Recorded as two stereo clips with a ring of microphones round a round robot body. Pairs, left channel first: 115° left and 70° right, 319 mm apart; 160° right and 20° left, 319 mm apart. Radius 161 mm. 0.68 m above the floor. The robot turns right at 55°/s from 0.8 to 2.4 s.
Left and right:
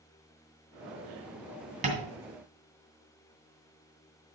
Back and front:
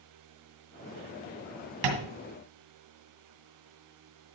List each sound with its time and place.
1.8 s tapping: straight ahead, 2.5 m; by 2.1 s 15° left, 2.5 m